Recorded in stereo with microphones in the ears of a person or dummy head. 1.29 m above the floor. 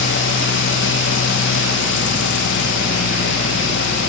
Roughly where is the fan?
Left.